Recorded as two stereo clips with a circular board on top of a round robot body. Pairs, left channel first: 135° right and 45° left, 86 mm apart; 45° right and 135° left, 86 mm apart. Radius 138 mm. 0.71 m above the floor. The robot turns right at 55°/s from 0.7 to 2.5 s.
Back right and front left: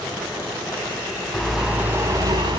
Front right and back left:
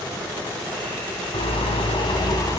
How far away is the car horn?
About 3 m.